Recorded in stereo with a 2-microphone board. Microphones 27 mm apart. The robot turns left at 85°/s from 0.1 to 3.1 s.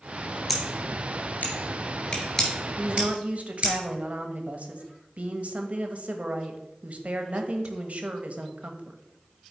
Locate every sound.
0.5 s scissors: centre (ahead or behind), 2.5 m; by 3.7 s 40° right (ahead or behind), 2.5 m
2.8 s a woman speaking: 30° right (ahead or behind), 1.0 m; by 9.0 s 50° right (ahead or behind), 1.0 m